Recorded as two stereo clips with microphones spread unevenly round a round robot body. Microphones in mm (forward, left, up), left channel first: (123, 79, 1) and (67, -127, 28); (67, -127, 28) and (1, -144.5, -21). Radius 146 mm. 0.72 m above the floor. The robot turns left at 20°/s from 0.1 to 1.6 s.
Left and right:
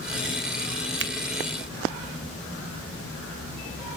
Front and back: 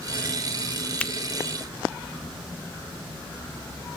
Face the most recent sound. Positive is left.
turn(degrees=-80)